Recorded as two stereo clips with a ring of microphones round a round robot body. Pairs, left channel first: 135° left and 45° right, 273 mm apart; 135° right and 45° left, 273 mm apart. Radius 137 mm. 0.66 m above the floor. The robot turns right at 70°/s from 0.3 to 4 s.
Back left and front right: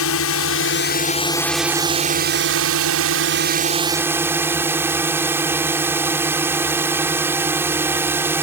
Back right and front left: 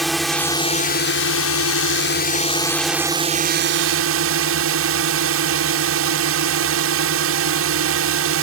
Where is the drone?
135° left; by 8.4 s 35° left.